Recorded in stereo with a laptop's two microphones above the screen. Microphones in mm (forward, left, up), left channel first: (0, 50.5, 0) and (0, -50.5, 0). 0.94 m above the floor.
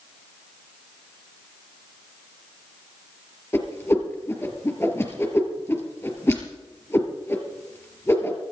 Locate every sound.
3.5 s a whoosh: 25° left (ahead or behind), 3.5 m